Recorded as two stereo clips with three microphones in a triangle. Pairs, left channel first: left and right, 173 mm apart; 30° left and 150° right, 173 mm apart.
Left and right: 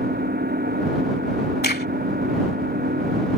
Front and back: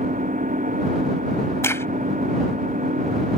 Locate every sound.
0.0 s an engine running: 110° right
1.6 s a crack: 105° left